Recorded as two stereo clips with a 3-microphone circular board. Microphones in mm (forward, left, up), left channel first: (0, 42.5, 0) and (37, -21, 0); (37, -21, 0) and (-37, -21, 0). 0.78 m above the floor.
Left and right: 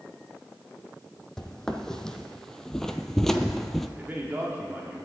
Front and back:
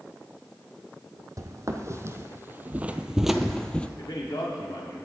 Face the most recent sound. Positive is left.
turn(degrees=5)